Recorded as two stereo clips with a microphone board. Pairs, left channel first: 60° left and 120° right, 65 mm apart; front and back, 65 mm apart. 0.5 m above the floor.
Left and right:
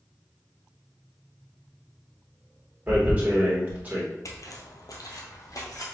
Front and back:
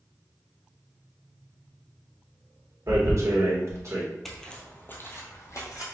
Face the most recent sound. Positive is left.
turn(degrees=30)